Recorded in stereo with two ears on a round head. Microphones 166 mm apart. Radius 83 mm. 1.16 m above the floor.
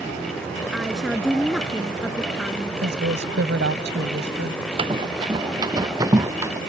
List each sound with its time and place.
0.7 s a woman speaking: centre (ahead or behind)
2.8 s a woman speaking: 65° right (ahead or behind)
4.8 s running footsteps: 30° right (ahead or behind); by 6.6 s 15° right (ahead or behind)